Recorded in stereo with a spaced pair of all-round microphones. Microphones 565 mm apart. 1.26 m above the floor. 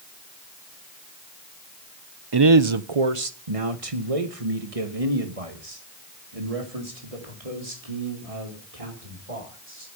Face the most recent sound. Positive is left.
turn(degrees=-85)